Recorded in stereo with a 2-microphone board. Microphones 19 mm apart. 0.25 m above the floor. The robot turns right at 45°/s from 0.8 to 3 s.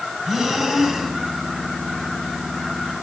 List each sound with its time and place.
0.2 s breathing: 25° right (ahead or behind), 1.9 m; by 1.2 s 10° right (ahead or behind), 1.9 m